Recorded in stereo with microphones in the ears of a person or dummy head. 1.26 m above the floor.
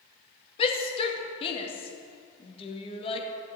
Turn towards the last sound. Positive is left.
turn(degrees=25)  # may be behind; listen again after turning